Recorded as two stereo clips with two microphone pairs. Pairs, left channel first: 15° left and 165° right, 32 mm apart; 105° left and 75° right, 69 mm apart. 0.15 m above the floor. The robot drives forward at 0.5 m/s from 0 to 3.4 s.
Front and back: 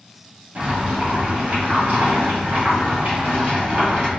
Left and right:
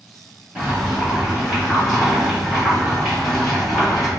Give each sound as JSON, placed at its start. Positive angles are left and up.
{"t": 0.6, "sound": "boiling", "azimuth_deg": -140, "distance_m": 1.5}